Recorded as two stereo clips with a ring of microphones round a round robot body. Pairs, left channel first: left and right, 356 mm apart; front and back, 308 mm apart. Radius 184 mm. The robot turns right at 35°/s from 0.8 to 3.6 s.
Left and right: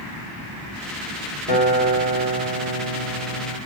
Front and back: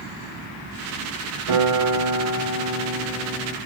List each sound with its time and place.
1.5 s a guitar: 160° right, 2.5 m; by 3.6 s 85° right, 2.5 m